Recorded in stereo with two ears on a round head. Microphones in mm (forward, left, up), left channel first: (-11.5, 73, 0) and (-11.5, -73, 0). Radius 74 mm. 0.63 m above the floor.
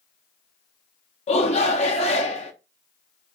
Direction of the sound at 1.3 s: 45° left (ahead or behind).